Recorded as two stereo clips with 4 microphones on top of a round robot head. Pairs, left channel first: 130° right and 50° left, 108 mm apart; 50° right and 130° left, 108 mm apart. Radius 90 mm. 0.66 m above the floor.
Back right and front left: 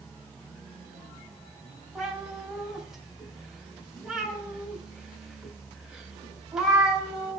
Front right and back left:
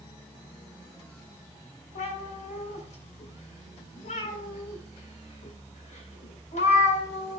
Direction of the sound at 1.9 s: 35° right.